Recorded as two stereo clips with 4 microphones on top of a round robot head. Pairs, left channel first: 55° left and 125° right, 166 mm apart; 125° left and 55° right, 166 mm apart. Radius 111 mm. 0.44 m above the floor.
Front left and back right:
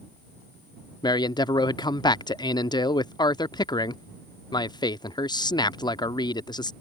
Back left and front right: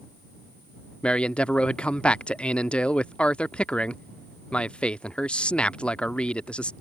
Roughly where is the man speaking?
Ahead left.